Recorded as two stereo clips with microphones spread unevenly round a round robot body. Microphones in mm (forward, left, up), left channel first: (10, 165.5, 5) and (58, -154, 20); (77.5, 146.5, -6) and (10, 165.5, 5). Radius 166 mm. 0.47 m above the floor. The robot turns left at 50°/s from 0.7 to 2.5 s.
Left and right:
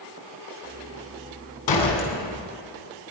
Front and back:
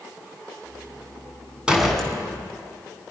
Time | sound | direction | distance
1.7 | a door slam | 85° left | 4 m